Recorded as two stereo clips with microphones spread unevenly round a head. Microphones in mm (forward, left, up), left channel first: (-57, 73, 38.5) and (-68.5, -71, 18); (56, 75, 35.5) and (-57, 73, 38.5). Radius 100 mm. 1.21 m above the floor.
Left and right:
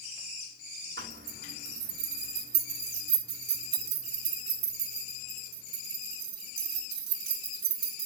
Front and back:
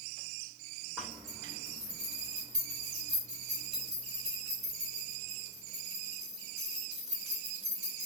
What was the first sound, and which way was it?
A zipper, 90° right.